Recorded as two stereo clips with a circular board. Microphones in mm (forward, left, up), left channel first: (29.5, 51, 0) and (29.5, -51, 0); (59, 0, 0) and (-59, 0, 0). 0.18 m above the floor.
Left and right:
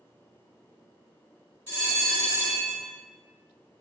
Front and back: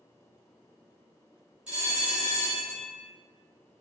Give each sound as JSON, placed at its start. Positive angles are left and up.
{"t": 1.7, "sound": "a bell", "azimuth_deg": 110, "distance_m": 1.4}